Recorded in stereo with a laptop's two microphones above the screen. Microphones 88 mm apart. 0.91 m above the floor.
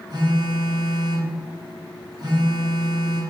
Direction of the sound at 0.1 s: 50° right (ahead or behind).